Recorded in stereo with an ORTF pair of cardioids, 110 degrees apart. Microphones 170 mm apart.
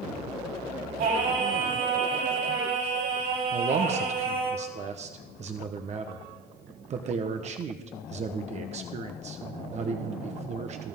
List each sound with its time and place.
1.0 s singing: 70° right, 7.5 m
3.5 s a man speaking: 45° right, 1.2 m